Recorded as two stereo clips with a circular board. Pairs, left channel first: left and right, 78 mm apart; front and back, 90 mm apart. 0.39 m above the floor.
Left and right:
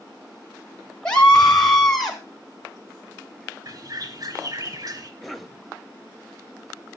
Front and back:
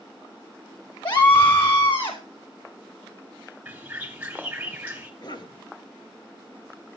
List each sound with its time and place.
1.1 s a scream: 15° left, 1.3 m; by 2.2 s straight ahead, 1.8 m
3.6 s a bird: 110° right, 2.5 m
5.2 s a cough: straight ahead, 2 m